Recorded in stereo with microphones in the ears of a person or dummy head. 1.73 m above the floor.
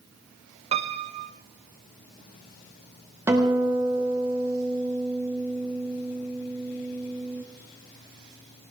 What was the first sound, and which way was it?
A piano, 35° right (ahead or behind).